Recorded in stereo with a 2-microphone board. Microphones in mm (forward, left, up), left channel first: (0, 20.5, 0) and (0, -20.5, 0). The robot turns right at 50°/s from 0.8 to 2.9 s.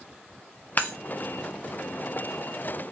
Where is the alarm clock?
No alarm clock in this recording.